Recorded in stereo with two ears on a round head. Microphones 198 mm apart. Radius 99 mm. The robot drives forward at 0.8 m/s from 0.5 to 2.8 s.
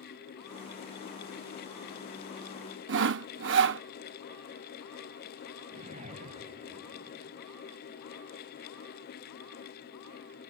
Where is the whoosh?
35° right (ahead or behind).